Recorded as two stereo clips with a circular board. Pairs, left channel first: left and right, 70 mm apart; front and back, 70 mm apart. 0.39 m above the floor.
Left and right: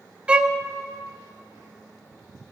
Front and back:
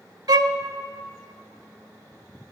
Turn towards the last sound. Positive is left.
turn(degrees=-165)